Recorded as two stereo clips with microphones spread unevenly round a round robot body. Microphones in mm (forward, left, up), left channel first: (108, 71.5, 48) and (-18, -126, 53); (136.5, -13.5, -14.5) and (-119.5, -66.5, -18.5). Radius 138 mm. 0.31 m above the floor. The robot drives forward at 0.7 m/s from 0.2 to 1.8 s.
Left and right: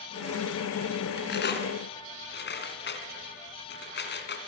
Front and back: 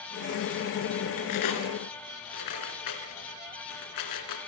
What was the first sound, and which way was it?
Cutlery clinking, 10° left.